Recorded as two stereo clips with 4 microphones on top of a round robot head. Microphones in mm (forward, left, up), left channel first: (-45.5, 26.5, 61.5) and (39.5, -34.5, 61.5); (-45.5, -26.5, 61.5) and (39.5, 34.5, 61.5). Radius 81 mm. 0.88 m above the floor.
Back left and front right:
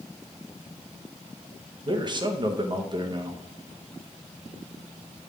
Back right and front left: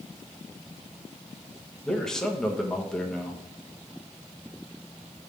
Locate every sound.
1.9 s a man speaking: 60° right, 1.1 m